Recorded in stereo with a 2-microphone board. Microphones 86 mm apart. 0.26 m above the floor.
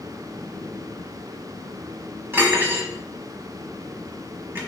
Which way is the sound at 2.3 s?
25° right (ahead or behind).